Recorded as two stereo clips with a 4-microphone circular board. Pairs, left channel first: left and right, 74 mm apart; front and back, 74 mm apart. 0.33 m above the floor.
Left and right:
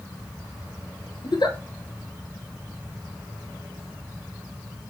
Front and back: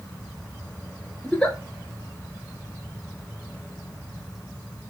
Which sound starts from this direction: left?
A giggle, at 1.2 s.